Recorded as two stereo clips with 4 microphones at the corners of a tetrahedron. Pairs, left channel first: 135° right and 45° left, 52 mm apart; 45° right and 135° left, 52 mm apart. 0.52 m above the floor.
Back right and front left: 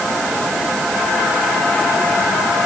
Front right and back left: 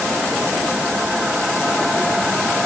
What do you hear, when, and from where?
Only background noise.